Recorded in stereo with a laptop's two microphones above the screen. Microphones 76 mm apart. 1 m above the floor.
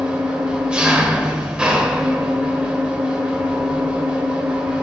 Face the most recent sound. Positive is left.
turn(degrees=-15)  # may be behind; listen again after turning